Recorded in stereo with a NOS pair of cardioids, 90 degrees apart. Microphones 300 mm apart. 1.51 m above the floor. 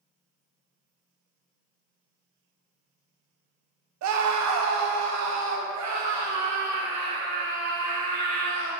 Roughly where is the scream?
Ahead right.